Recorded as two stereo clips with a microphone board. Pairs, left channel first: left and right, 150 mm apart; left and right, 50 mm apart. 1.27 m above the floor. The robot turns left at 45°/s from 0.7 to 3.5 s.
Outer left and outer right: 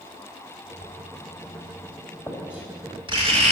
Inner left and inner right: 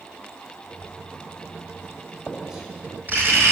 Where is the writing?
65° left (ahead or behind), 2.5 m; by 3.5 s 50° right (ahead or behind), 2.5 m.